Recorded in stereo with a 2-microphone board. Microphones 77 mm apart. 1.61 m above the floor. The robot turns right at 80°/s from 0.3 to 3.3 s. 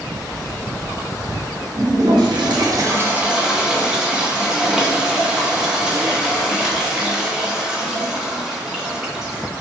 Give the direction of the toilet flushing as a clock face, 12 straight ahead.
4 o'clock.